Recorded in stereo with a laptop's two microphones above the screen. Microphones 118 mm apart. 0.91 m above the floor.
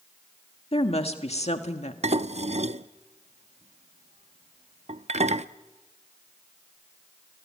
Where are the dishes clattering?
65° right (ahead or behind), 0.6 m.